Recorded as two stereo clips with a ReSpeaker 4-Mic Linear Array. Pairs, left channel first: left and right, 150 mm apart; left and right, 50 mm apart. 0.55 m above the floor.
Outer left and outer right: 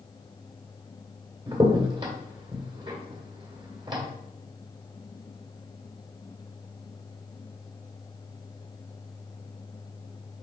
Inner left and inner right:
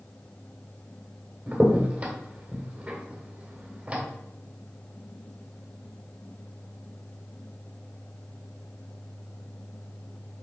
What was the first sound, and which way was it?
A crack, 30° right (ahead or behind).